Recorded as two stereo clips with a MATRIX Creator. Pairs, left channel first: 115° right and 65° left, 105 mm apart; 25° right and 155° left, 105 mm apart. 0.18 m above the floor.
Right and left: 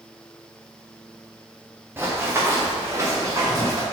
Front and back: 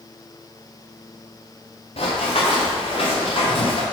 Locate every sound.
2.0 s running footsteps: 5° right, 2 m; by 3.8 s 10° left, 3 m